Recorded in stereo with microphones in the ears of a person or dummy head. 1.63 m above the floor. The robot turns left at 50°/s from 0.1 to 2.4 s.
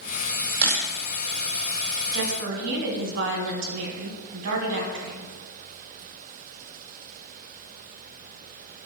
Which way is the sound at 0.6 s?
10° right (ahead or behind).